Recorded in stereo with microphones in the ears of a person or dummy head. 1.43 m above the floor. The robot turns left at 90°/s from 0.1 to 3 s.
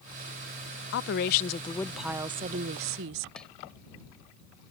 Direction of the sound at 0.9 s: 95° left.